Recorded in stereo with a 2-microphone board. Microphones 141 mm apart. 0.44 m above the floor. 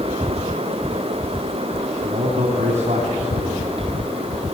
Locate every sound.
2.0 s a man speaking: 50° right (ahead or behind), 3 m